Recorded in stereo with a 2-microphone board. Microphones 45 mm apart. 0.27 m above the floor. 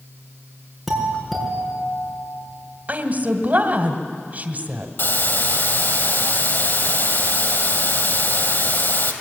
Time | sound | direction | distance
0.9 | a doorbell | centre (ahead or behind) | 5 m
2.9 | a woman speaking | 40° right (ahead or behind) | 1.5 m
5.0 | a hiss | 60° left (ahead or behind) | 2.5 m